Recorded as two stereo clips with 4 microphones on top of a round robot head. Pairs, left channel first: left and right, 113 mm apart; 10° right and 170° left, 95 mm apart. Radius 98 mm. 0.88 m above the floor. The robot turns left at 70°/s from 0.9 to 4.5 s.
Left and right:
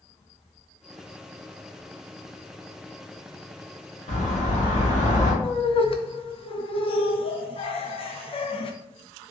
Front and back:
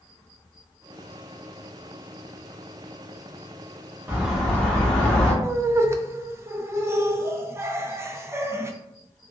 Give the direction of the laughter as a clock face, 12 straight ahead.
8 o'clock.